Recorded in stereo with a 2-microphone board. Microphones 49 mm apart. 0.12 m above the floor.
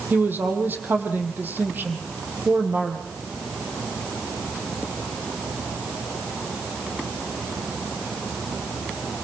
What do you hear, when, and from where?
0.1 s a woman speaking: 40° right (ahead or behind), 4 m